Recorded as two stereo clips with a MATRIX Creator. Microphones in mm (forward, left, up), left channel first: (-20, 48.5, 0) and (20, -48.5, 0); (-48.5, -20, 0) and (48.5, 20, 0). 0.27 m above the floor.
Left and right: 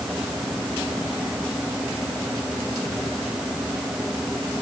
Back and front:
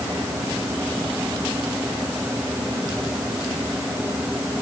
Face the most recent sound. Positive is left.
No sound to turn to.